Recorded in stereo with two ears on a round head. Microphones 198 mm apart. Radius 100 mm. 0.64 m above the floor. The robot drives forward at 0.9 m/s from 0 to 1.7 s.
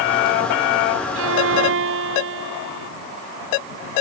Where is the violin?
70° right (ahead or behind); by 2.9 s 65° right (ahead or behind).